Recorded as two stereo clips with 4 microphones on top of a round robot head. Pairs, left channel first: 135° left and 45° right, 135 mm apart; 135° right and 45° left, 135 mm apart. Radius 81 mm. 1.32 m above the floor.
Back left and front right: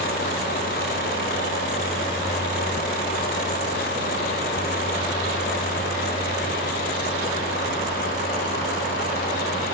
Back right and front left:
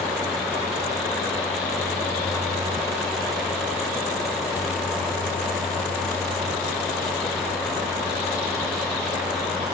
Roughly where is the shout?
I don't hear a shout.